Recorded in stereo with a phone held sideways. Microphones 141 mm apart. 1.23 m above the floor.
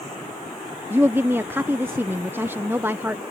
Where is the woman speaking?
15° right (ahead or behind).